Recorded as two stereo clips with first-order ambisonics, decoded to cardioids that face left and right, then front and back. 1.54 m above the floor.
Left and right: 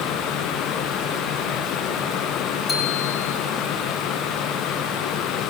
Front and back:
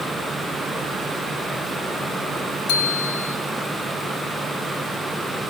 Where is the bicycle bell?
15° left, 2.5 m.